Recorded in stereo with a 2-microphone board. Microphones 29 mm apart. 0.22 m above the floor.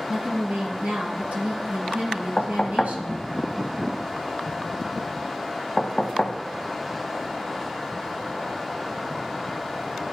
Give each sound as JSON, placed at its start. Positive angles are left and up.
{"t": 0.1, "sound": "a woman speaking", "side_deg": -60, "distance_m": 1.8}
{"t": 2.4, "sound": "knocking", "side_deg": 30, "distance_m": 0.9}